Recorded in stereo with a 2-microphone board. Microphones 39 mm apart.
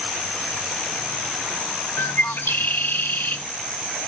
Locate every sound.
2.0 s a bird: 85° left, 1.7 m